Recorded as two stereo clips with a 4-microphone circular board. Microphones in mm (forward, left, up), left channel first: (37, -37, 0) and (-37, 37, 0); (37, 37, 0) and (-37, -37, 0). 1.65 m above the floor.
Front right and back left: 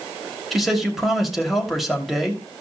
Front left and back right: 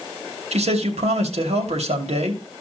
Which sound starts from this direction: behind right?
A man speaking, at 0.5 s.